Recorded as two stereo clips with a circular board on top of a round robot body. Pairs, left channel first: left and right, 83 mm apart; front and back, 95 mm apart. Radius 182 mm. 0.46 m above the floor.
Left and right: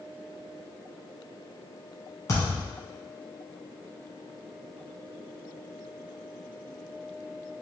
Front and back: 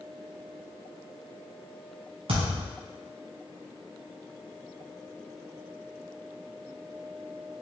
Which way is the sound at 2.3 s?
145° left.